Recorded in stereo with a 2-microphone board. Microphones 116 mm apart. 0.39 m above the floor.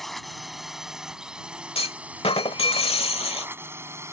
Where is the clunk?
55° left (ahead or behind).